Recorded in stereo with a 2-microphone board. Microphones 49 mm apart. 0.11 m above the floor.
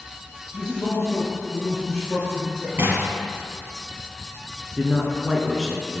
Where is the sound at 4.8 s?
10° right (ahead or behind), 1.1 m.